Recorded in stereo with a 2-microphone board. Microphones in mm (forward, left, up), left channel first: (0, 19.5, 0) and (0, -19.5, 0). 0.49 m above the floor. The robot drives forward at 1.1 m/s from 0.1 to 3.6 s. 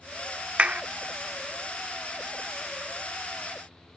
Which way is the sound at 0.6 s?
30° right (ahead or behind).